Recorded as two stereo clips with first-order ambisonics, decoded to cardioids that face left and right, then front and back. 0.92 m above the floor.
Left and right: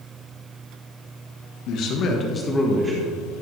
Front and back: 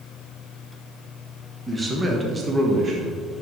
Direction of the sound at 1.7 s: 100° left.